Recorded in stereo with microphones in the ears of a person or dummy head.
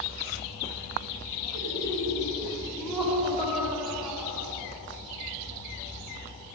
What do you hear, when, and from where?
1.5 s laughter: 50° right (ahead or behind), 3.5 m; by 4.5 s 20° right (ahead or behind), 5.5 m